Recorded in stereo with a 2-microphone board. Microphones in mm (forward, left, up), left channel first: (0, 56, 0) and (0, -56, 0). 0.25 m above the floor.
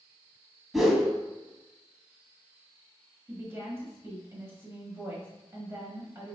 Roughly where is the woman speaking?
Right.